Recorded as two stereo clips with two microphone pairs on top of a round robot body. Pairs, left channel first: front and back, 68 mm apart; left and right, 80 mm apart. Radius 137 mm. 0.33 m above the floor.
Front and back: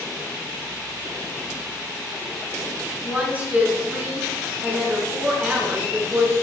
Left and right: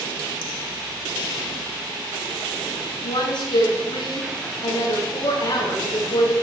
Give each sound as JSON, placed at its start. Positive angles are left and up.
{"t": 3.0, "sound": "a woman speaking", "azimuth_deg": 115, "distance_m": 5.0}